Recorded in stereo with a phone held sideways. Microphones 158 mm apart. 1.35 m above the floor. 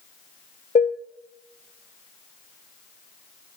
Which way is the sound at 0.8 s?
55° left (ahead or behind).